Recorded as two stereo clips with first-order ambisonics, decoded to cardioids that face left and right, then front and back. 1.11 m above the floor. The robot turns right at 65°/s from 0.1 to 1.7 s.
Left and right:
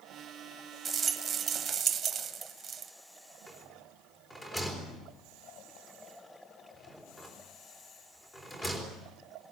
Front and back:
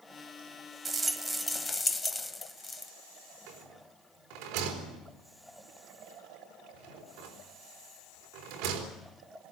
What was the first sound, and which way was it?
A rattle, 125° right.